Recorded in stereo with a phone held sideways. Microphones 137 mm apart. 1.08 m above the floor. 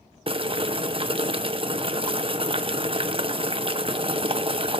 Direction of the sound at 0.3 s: 40° right (ahead or behind).